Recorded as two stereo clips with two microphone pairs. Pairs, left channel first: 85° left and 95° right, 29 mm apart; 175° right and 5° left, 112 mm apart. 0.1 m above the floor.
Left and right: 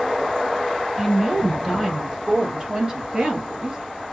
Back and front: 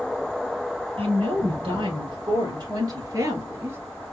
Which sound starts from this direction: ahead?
A woman speaking, at 1.0 s.